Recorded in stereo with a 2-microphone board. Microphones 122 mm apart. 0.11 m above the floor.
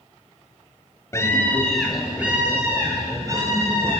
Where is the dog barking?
I don't hear a dog barking.